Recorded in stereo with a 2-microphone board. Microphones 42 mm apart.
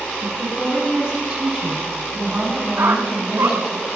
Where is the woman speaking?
25° right (ahead or behind), 9.5 m; by 3.8 s 5° right (ahead or behind), 7 m.